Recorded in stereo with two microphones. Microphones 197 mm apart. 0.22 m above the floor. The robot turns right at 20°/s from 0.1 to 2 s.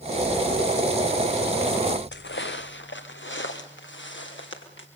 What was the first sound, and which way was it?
Footsteps, 70° left (ahead or behind).